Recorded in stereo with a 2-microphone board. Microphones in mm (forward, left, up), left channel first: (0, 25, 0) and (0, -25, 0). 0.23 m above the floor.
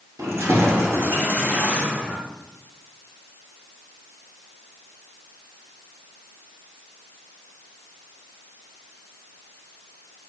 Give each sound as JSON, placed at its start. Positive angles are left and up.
{"t": 0.2, "sound": "keys jangling", "side_deg": -75, "distance_m": 2.5}